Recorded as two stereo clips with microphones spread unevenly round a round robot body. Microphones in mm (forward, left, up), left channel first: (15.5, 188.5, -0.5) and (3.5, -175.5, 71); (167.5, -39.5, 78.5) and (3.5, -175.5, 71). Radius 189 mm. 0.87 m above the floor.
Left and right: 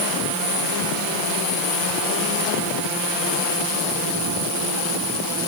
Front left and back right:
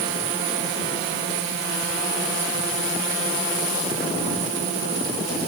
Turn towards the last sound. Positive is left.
No sound to turn to.